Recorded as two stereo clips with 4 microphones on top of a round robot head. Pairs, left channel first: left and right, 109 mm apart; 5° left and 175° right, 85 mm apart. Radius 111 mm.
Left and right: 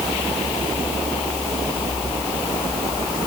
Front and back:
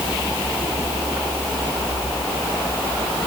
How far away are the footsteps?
No footsteps in this recording.